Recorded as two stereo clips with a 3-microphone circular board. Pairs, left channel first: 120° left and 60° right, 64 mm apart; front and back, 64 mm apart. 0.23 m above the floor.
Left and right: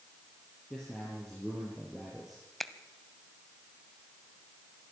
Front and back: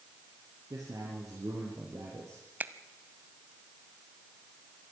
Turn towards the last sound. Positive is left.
turn(degrees=-160)